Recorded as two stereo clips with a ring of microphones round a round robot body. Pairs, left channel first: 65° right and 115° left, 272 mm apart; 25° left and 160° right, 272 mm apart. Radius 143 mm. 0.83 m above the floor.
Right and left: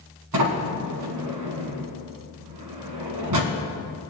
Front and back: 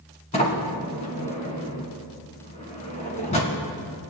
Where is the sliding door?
90° left, 1.7 m.